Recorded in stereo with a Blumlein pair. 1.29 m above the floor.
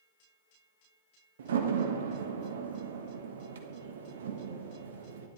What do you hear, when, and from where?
1.4 s a door slam: 60° right, 1.4 m